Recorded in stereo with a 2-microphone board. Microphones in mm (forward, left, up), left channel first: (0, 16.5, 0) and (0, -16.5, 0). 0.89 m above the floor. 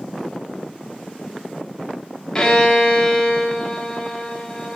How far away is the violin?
About 0.8 m.